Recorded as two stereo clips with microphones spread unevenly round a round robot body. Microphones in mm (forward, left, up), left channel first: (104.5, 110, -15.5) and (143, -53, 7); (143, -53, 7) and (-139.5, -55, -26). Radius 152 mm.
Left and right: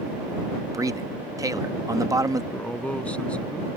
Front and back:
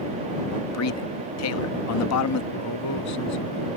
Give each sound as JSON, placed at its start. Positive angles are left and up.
{"t": 0.7, "sound": "a man speaking", "azimuth_deg": -5}
{"t": 2.5, "sound": "a man speaking", "azimuth_deg": 20}